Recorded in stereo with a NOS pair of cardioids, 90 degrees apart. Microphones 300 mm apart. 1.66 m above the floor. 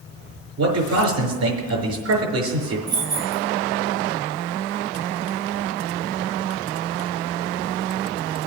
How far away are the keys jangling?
About 3 m.